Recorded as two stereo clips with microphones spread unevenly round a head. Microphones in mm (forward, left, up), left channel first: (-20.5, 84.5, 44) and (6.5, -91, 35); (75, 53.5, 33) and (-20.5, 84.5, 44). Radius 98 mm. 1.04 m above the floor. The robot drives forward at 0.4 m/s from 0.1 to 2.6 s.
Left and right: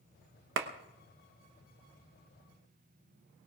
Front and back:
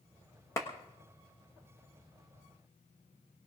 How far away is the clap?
About 1.1 m.